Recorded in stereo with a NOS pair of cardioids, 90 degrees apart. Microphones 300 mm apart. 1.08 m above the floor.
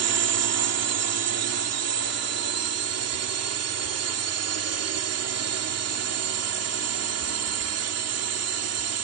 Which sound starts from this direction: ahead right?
A drone, at 0.0 s.